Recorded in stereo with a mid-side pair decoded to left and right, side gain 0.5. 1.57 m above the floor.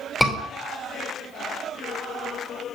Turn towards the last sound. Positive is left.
turn(degrees=0)